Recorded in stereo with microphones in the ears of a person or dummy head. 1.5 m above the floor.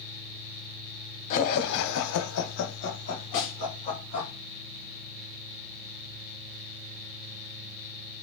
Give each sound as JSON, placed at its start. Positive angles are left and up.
{"t": 1.3, "sound": "laughter", "side_deg": 40, "distance_m": 0.5}
{"t": 3.3, "sound": "a snare drum", "side_deg": 65, "distance_m": 1.0}